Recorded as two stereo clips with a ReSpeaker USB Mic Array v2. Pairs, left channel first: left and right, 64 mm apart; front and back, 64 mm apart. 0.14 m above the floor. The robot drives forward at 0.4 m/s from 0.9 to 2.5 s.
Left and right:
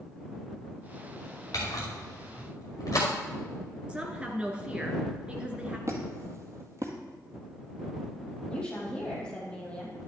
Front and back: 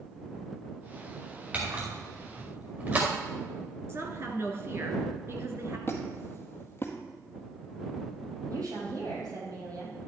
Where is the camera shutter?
120° left, 5 m.